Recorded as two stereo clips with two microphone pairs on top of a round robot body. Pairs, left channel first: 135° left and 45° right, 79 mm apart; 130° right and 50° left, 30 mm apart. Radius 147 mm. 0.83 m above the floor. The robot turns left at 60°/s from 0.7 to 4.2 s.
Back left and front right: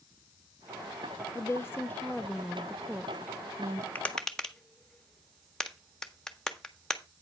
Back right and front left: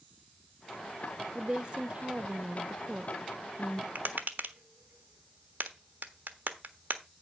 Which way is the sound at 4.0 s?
65° left.